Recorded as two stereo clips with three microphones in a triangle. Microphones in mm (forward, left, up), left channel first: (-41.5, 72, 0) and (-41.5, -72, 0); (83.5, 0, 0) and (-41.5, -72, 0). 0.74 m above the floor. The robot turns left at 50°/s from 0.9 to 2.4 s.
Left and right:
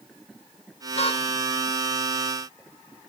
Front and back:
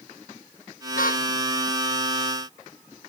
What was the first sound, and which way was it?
A car horn, 45° left.